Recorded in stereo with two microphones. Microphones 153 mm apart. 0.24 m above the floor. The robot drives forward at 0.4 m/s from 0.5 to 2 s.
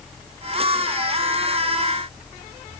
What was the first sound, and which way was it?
Only background noise.